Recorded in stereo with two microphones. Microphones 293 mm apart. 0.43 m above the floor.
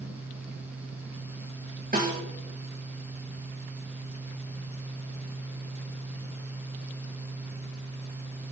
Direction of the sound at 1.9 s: 30° right (ahead or behind).